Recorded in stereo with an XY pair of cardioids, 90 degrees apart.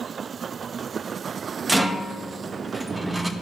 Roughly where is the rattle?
Ahead.